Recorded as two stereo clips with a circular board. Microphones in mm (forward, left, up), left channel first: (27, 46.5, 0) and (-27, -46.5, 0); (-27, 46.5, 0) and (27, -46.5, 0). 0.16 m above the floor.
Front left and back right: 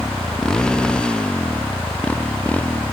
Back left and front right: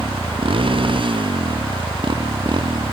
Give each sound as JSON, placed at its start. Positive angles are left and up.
{"t": 0.0, "sound": "a motorcycle", "azimuth_deg": -25}